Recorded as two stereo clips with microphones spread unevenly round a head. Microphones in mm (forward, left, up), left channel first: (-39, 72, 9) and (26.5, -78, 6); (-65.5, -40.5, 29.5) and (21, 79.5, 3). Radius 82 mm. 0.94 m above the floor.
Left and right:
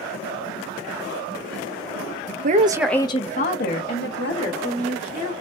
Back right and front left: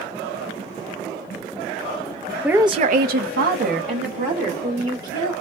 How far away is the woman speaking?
About 0.6 m.